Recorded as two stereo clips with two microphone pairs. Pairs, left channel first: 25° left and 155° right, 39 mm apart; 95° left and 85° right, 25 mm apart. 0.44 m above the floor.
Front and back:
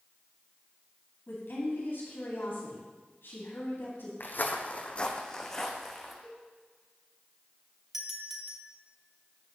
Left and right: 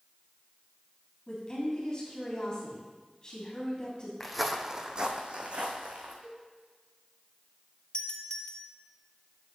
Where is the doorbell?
130° left, 1.5 m.